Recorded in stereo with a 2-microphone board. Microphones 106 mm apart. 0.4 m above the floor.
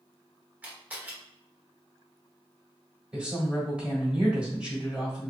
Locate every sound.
0.6 s a camera shutter: 15° right (ahead or behind), 1.1 m
3.1 s a woman speaking: 10° right (ahead or behind), 1.3 m